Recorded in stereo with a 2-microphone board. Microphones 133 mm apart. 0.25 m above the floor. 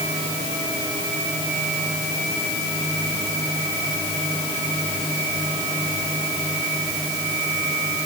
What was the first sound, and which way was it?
Only background noise.